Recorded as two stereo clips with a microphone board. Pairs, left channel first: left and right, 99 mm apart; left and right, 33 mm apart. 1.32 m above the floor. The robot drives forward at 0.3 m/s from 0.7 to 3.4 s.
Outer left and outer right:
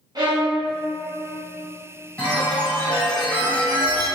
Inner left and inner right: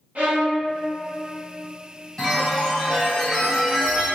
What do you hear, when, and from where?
0.1 s a violin: 45° right (ahead or behind), 0.7 m
2.2 s a chime: 20° left (ahead or behind), 1.5 m; by 4.1 s 15° left (ahead or behind), 1.7 m